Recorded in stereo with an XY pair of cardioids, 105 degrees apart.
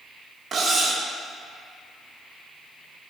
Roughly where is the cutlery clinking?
Ahead right.